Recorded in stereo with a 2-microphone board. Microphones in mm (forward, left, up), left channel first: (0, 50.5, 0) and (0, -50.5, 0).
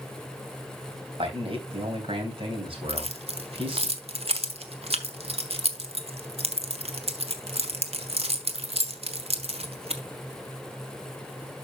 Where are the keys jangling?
65° right (ahead or behind), 1.2 m.